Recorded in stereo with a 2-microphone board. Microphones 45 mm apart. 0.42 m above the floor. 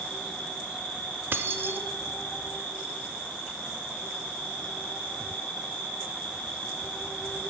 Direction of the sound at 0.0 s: 60° left (ahead or behind).